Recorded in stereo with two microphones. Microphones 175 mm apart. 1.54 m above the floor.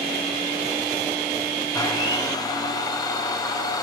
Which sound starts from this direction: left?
A blender, at 1.7 s.